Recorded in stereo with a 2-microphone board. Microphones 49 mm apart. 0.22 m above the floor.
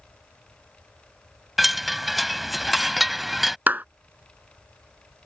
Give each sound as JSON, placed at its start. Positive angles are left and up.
{"t": 1.6, "sound": "a chime", "side_deg": -5}
{"t": 3.7, "sound": "a clap", "side_deg": -35}